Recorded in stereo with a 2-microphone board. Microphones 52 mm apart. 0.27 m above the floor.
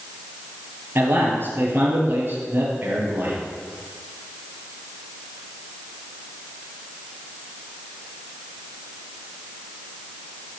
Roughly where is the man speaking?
Right.